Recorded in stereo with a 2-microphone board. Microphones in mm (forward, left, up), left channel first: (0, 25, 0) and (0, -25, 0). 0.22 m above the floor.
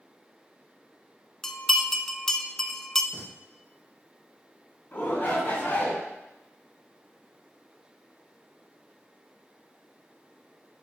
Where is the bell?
10° left (ahead or behind), 0.7 m.